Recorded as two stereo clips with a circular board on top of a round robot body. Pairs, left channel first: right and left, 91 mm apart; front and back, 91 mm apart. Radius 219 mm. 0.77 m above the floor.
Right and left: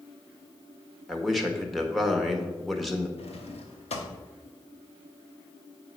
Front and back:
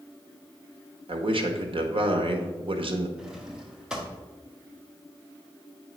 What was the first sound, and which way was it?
A man speaking, straight behind.